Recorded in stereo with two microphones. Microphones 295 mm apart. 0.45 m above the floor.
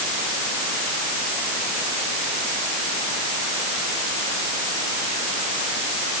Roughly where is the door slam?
I don't hear a door slam.